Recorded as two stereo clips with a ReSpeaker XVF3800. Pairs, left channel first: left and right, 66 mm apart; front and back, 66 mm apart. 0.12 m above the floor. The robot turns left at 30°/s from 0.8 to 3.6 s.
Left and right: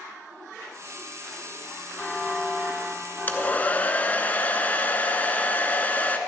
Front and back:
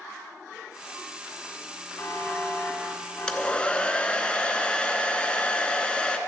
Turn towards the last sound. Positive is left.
turn(degrees=55)